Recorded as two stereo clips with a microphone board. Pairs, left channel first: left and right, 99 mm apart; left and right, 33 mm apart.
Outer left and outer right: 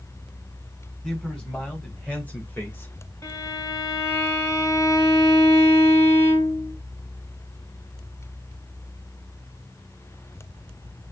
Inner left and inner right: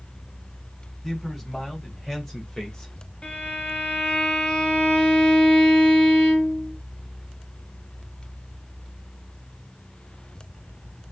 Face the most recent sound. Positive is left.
turn(degrees=35)  # may be behind; listen again after turning